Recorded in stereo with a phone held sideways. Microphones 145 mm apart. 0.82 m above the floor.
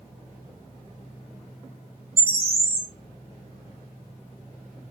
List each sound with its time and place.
2.2 s a bird: 40° right (ahead or behind), 1.3 m